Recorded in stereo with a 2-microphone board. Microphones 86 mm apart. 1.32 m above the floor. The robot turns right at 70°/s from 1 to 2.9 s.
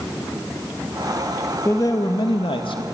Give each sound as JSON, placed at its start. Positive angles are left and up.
{"t": 1.6, "sound": "a man speaking", "azimuth_deg": 30, "distance_m": 2.0}